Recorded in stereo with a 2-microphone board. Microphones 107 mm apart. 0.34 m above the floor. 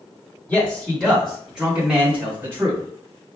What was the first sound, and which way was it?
A man speaking, 10° left (ahead or behind).